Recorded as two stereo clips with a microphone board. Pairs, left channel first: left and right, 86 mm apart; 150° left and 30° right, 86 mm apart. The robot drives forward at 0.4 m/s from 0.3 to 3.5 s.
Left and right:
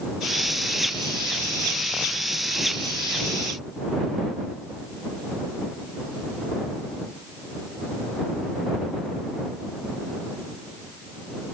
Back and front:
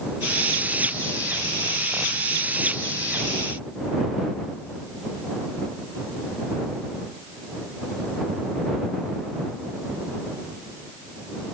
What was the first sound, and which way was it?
Only background noise.